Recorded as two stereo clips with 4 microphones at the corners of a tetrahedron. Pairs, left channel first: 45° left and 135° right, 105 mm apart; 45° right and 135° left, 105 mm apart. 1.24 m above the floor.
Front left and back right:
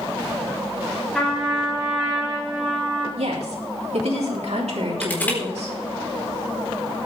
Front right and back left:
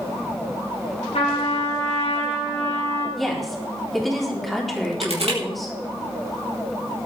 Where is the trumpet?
45° right, 8 m.